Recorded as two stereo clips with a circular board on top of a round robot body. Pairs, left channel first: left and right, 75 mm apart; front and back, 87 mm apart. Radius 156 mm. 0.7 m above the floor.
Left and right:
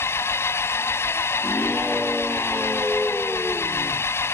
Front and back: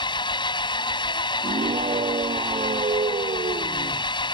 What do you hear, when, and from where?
0.0 s an engine running: 35° left
1.4 s a scream: 175° right